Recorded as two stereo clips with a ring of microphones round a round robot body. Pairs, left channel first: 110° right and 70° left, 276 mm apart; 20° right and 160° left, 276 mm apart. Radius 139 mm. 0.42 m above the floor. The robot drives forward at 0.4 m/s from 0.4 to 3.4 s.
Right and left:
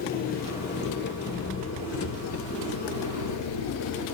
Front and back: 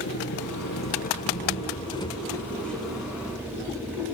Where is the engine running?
60° right, 1.5 m; by 4.2 s 120° right, 1.5 m.